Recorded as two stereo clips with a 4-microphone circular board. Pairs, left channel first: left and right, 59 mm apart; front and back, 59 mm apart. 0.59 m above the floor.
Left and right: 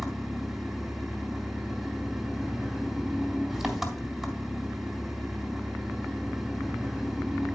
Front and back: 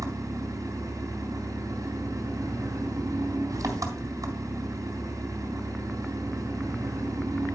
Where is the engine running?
175° right, 3 m.